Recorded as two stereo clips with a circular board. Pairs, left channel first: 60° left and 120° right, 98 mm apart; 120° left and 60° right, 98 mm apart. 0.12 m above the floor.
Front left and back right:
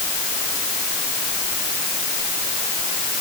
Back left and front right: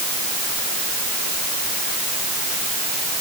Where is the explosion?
I don't hear an explosion.